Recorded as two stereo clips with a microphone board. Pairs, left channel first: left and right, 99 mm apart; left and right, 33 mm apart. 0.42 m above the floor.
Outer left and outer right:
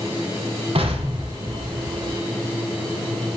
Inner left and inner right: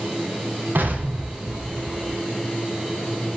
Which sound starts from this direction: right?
An explosion, at 0.8 s.